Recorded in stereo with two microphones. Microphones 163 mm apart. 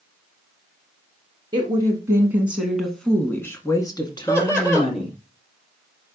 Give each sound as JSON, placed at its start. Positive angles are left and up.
{"t": 1.5, "sound": "a woman speaking", "side_deg": -30, "distance_m": 1.7}
{"t": 4.3, "sound": "laughter", "side_deg": 15, "distance_m": 3.0}